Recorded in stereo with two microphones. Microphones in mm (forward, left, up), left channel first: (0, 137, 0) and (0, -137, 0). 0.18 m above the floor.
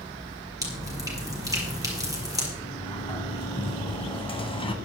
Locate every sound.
0.6 s dripping: 10° right (ahead or behind), 4.5 m
2.6 s a sliding door: 20° left (ahead or behind), 1.4 m